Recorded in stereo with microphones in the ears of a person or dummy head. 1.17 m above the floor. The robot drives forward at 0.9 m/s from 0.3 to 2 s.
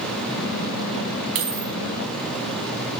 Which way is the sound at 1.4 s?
60° right (ahead or behind).